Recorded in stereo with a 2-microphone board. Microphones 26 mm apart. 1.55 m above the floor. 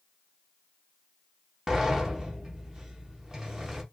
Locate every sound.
1.7 s a sliding door: 15° right (ahead or behind), 0.7 m